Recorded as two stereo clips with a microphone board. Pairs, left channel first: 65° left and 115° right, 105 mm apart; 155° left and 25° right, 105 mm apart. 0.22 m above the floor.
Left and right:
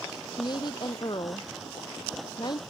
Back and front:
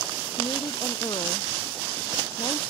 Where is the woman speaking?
115° left.